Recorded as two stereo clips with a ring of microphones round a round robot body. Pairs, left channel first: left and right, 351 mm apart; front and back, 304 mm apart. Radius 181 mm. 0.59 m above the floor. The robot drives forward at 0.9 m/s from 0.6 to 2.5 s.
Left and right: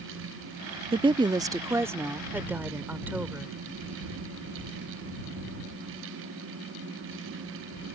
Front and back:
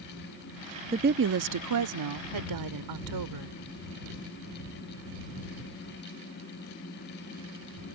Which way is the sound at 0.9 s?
140° right.